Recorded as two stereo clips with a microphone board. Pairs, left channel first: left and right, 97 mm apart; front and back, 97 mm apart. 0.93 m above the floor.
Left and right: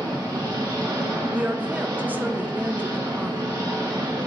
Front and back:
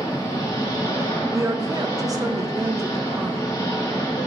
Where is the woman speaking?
155° right, 0.6 m.